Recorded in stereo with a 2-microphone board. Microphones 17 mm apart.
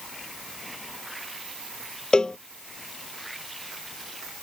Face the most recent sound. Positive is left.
turn(degrees=45)  # may be behind; listen again after turning